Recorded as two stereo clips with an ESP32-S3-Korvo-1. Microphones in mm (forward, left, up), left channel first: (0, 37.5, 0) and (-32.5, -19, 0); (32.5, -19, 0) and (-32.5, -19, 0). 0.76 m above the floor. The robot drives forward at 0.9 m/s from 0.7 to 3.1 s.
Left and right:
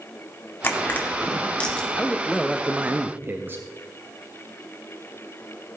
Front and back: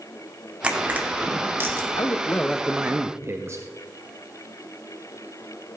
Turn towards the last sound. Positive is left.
turn(degrees=-165)